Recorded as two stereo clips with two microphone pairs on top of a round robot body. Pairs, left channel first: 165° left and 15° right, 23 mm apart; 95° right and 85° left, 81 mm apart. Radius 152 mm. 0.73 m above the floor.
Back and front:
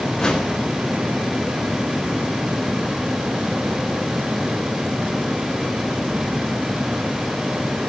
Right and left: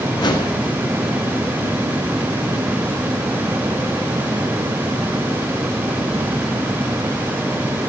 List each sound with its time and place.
0.2 s a whoosh: 130° right, 4 m